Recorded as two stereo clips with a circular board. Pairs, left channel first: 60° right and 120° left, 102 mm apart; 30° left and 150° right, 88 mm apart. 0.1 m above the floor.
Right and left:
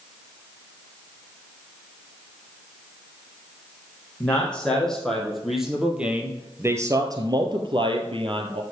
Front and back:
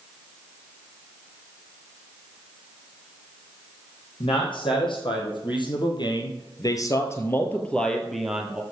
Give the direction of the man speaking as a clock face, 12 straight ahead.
11 o'clock.